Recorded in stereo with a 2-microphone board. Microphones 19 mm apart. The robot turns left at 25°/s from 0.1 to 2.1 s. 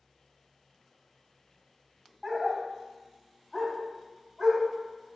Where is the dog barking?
15° right (ahead or behind), 1.0 m.